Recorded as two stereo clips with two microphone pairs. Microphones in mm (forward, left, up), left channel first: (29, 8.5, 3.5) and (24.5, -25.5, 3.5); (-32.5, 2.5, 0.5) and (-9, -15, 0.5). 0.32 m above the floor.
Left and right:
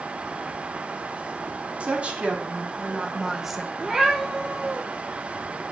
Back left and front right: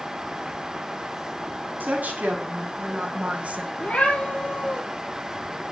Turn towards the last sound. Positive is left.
turn(degrees=-175)